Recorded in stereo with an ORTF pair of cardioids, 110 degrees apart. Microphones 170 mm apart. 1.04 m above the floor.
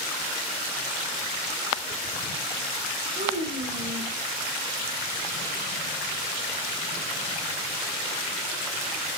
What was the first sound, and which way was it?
A child speaking, 40° right.